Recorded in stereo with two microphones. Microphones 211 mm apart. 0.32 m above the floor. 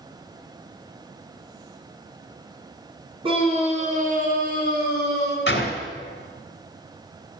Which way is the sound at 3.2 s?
25° right (ahead or behind).